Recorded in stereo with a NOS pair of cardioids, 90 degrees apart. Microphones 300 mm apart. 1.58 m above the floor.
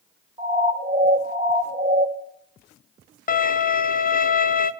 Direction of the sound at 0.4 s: 20° right.